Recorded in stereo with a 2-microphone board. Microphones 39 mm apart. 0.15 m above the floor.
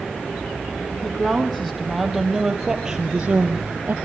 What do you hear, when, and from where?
1.0 s a woman speaking: 10° left (ahead or behind), 5.5 m; by 3.9 s 35° right (ahead or behind), 2.5 m